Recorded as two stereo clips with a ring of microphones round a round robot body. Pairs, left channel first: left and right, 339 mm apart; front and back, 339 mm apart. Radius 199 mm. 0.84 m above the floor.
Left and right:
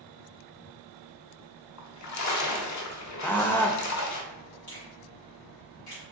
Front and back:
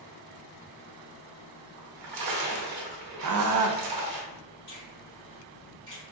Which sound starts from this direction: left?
A finger snap, at 4.7 s.